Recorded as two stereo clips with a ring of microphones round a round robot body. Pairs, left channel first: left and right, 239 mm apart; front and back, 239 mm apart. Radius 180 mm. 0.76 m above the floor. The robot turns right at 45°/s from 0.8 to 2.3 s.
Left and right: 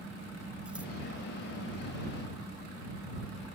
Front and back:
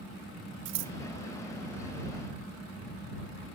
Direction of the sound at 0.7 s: 175° right.